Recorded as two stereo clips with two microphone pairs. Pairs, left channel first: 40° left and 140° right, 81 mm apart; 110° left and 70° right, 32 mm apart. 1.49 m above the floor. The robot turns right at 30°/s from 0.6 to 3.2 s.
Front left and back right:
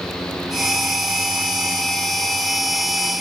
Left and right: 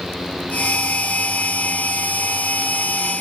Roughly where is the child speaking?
No child speaking in this recording.